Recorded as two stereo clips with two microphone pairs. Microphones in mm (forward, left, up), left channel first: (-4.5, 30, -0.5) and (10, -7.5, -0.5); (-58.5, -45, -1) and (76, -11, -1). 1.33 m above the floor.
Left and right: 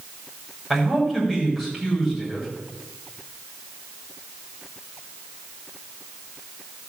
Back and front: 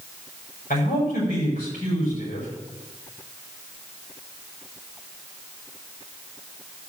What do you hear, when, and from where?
0.7 s a man speaking: 165° right, 6.5 m